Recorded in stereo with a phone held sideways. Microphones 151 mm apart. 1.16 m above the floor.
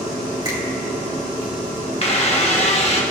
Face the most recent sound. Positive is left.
turn(degrees=45)  # may be behind; listen again after turning